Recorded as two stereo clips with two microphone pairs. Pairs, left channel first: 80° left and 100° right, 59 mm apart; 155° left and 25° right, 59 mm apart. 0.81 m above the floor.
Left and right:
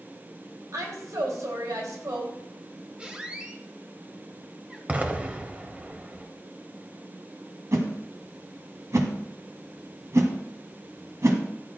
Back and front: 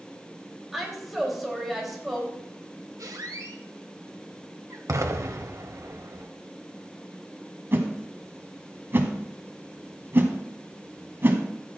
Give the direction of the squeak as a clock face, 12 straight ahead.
1 o'clock.